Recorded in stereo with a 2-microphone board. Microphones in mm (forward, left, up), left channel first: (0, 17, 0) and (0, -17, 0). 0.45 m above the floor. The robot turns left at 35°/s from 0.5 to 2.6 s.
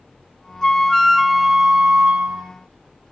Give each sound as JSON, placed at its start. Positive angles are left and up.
{"t": 0.6, "sound": "a flute", "azimuth_deg": 25, "distance_m": 0.5}